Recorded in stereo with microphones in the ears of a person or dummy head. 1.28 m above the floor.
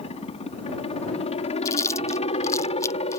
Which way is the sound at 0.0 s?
35° left (ahead or behind).